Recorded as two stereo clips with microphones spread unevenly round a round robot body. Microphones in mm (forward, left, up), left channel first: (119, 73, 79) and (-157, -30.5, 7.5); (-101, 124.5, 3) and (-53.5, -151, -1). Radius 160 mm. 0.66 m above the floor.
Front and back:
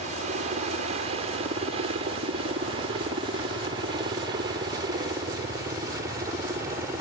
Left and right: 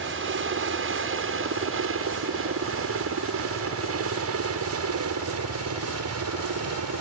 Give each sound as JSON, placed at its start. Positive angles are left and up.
{"t": 0.0, "sound": "a helicopter", "azimuth_deg": -110}